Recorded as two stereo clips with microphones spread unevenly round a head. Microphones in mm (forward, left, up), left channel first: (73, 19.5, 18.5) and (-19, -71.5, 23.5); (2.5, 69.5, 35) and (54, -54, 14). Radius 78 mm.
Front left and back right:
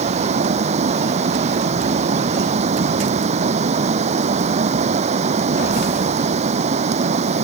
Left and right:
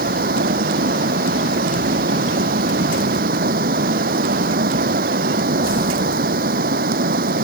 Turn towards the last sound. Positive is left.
turn(degrees=-100)